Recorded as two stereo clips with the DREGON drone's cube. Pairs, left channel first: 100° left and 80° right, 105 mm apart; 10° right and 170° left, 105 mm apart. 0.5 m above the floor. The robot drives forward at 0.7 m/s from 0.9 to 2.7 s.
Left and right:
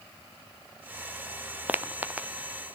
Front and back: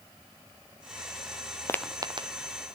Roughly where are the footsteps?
Ahead.